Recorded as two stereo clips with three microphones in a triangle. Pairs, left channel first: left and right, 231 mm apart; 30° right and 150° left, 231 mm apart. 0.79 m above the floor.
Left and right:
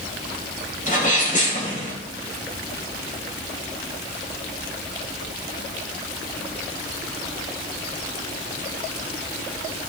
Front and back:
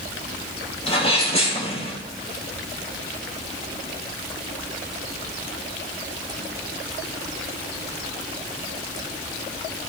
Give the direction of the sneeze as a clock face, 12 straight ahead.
11 o'clock.